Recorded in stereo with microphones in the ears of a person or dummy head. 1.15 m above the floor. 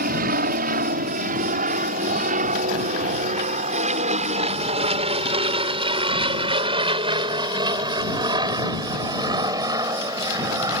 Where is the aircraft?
45° right (ahead or behind); by 10.8 s 25° right (ahead or behind).